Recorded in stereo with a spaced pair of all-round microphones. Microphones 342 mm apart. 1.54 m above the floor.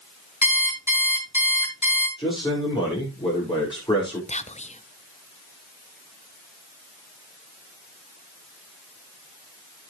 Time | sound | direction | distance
0.4 | an alarm clock | 55° left (ahead or behind) | 6 m
2.2 | a man speaking | 10° left (ahead or behind) | 5.5 m
4.3 | whispering | 20° left (ahead or behind) | 0.7 m